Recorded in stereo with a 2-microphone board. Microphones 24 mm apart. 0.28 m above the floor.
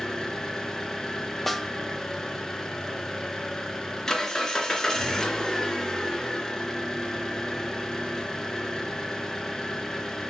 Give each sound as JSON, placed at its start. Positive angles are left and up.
{"t": 0.0, "sound": "an engine running", "side_deg": 20, "distance_m": 3.0}
{"t": 1.5, "sound": "a snare drum", "side_deg": 10, "distance_m": 1.4}